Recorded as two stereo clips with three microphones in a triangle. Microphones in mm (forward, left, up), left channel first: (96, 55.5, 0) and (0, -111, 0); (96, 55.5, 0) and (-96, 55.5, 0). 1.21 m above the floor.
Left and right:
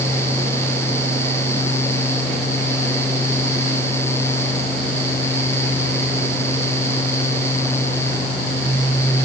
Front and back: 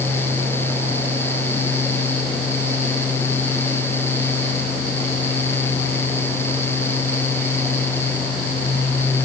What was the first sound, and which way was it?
Only background noise.